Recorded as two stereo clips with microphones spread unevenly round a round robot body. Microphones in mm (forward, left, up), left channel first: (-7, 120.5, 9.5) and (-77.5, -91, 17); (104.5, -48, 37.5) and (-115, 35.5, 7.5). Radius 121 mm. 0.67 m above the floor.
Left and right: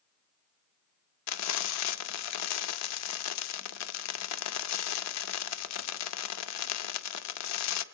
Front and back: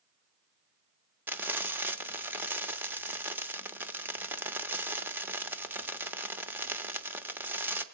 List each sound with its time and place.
1.3 s frying: 80° left, 0.9 m